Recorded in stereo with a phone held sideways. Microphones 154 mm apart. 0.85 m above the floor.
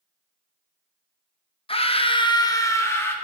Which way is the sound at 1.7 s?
35° left (ahead or behind).